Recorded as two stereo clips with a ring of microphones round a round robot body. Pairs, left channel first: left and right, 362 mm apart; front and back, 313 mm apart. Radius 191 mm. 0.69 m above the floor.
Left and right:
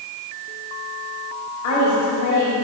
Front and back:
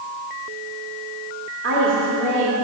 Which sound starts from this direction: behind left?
A woman speaking, at 1.6 s.